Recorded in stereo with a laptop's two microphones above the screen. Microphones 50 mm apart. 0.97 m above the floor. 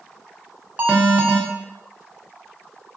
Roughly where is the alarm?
Right.